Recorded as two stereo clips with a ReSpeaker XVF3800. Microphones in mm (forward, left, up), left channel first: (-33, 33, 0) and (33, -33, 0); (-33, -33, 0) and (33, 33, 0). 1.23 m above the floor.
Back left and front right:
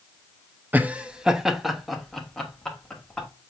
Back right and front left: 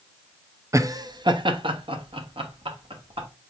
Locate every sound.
0.7 s laughter: 15° left, 0.5 m; by 3.3 s 50° left, 1.7 m